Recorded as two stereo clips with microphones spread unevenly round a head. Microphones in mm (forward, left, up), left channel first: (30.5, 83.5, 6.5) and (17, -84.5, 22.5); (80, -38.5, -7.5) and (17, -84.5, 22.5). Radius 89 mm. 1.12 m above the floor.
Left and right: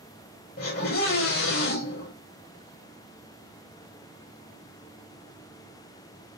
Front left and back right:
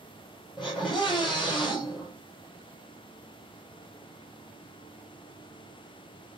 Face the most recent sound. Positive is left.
turn(degrees=125)